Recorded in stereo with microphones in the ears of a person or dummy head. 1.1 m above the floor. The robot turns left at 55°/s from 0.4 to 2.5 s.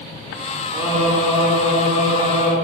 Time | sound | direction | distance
0.7 | singing | 165° right | 3 m